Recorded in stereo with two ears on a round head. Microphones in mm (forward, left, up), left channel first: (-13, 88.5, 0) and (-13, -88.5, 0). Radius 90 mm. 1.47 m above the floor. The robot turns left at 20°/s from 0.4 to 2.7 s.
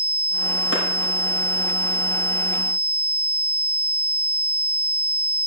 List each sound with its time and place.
0.7 s a clap: 65° left (ahead or behind), 5.5 m; by 0.8 s 60° left (ahead or behind), 5.5 m